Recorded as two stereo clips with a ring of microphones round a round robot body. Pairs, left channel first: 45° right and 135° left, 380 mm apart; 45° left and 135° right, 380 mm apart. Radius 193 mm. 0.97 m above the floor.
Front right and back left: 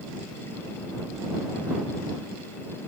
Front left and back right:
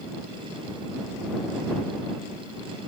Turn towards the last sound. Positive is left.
No sound to turn to.